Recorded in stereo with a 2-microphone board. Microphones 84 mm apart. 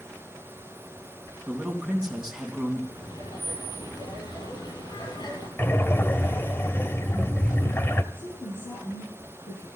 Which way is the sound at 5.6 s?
30° left (ahead or behind).